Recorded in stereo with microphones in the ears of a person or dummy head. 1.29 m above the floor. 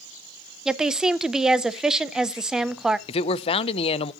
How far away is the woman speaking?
About 0.6 m.